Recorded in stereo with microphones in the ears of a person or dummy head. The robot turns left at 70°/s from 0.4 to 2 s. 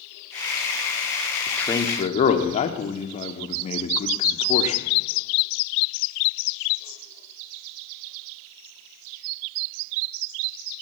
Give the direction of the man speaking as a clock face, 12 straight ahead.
6 o'clock.